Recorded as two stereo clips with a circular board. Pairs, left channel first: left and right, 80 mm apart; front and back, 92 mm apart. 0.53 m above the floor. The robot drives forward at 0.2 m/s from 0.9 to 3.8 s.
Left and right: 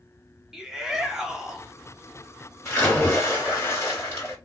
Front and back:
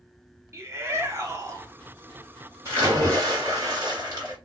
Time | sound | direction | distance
0.5 | a shout | 170° right | 0.7 m
2.6 | a splash | 140° left | 1.9 m